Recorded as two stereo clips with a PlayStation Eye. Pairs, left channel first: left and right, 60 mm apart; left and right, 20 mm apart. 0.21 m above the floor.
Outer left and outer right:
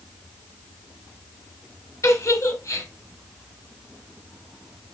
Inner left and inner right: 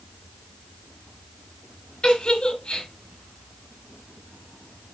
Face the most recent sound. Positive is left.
turn(degrees=65)  # may be behind; listen again after turning